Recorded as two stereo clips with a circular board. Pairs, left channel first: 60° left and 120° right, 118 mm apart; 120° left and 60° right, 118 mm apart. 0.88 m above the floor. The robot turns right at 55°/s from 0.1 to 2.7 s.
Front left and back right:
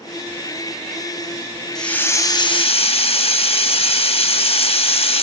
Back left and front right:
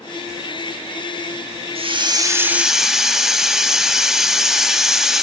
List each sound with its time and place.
1.8 s a hiss: 25° right, 0.9 m; by 5.2 s 25° left, 0.9 m